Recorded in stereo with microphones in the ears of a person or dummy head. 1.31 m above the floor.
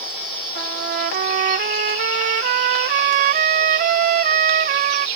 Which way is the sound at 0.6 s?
45° right (ahead or behind).